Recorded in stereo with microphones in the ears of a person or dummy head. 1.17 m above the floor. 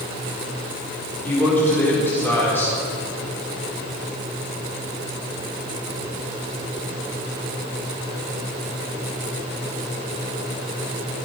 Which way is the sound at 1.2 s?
10° left (ahead or behind).